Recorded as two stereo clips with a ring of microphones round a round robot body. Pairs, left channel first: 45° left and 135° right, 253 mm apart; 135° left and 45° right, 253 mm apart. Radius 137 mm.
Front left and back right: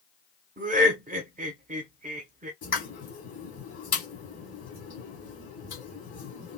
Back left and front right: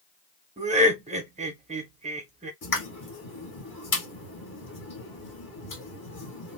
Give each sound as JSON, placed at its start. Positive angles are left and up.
{"t": 0.6, "sound": "laughter", "azimuth_deg": -95, "distance_m": 1.0}
{"t": 2.6, "sound": "a pop", "azimuth_deg": 100, "distance_m": 2.5}